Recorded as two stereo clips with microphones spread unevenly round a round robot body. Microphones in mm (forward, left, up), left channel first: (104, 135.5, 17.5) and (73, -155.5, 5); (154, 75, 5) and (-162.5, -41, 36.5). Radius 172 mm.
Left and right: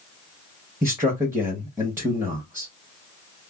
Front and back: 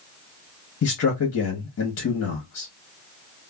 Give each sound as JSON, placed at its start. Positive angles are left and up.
{"t": 0.8, "sound": "a man speaking", "azimuth_deg": -20, "distance_m": 0.9}